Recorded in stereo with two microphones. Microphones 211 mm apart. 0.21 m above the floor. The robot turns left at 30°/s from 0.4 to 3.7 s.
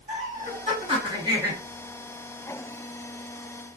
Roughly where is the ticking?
I don't hear ticking.